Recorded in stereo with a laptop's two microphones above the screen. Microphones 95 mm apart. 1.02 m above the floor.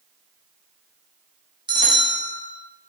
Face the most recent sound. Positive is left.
turn(degrees=-55)  # may be behind; listen again after turning